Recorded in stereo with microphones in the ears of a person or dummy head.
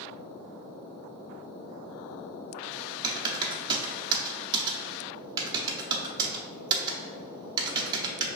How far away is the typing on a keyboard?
About 0.6 m.